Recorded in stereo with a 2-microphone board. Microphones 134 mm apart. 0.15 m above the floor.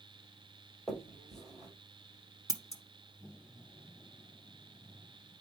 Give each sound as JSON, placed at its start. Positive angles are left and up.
{"t": 0.9, "sound": "a finger snap", "side_deg": 5, "distance_m": 3.0}
{"t": 2.5, "sound": "scissors", "side_deg": 25, "distance_m": 0.9}